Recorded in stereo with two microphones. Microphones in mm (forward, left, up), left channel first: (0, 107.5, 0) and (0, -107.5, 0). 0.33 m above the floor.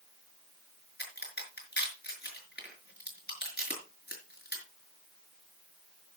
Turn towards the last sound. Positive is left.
turn(degrees=50)  # may be behind; listen again after turning